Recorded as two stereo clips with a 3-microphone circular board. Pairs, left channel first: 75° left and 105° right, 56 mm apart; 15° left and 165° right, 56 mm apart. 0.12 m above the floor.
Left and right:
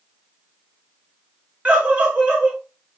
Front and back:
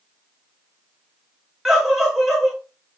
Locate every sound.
1.6 s a scream: 95° right, 1.2 m